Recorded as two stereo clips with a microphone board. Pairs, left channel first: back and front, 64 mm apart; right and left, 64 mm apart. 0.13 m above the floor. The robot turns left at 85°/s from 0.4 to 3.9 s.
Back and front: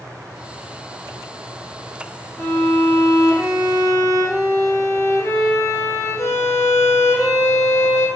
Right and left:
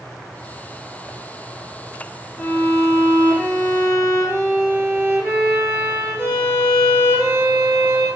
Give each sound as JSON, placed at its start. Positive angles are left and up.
{"t": 2.4, "sound": "a violin", "azimuth_deg": -80, "distance_m": 6.0}